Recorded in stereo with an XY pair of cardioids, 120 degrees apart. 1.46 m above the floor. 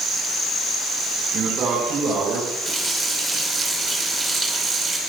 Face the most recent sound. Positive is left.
turn(degrees=-10)